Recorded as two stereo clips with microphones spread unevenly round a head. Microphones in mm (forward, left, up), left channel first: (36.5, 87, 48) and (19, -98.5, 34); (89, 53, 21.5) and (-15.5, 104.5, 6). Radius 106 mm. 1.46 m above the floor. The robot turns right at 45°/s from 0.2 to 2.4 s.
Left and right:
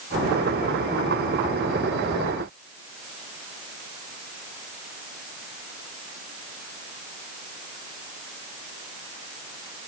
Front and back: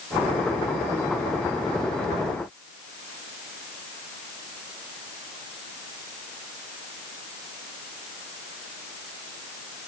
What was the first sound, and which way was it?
Only background noise.